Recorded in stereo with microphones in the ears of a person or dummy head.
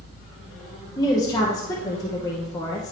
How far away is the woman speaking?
About 1.0 m.